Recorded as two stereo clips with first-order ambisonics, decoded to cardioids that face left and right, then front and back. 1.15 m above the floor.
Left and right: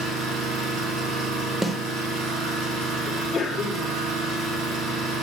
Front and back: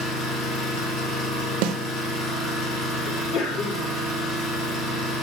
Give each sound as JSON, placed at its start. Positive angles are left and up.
{"t": 0.0, "sound": "an engine running", "azimuth_deg": -40, "distance_m": 4.0}
{"t": 1.6, "sound": "a snare drum", "azimuth_deg": 180, "distance_m": 0.6}
{"t": 3.1, "sound": "a sneeze", "azimuth_deg": 20, "distance_m": 2.5}